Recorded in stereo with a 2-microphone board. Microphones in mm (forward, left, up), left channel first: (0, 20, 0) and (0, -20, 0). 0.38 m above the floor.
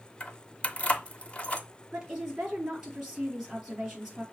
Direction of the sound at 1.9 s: 15° right (ahead or behind).